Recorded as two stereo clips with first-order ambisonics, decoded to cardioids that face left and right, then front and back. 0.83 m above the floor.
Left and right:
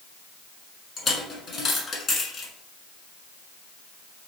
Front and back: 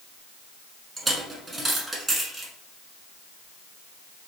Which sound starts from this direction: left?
A dropped coin, at 1.0 s.